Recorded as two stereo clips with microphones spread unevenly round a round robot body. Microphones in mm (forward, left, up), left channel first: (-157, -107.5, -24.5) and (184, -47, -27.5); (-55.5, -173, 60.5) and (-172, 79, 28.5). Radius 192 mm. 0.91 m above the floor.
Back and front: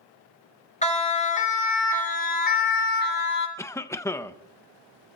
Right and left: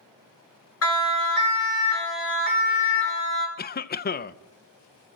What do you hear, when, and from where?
0.8 s a siren: 100° right, 6 m; by 3.5 s 115° right, 6.5 m
3.6 s a cough: 95° right, 0.7 m